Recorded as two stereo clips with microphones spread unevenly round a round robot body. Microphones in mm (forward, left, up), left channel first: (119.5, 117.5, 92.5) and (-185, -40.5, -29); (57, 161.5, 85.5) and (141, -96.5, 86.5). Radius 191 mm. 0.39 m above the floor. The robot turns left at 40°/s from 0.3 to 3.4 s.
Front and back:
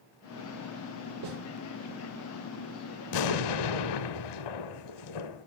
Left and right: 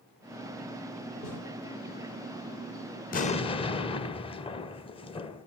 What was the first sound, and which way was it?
A snare drum, 160° right.